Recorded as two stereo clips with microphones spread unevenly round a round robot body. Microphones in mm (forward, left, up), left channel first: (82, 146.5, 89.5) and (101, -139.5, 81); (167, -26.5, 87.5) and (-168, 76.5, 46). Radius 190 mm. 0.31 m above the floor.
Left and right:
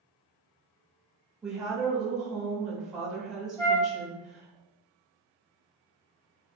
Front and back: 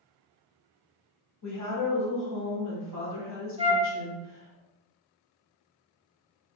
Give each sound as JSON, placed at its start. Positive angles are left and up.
{"t": 1.4, "sound": "a woman speaking", "azimuth_deg": 0, "distance_m": 1.8}
{"t": 3.6, "sound": "a flute", "azimuth_deg": 160, "distance_m": 0.8}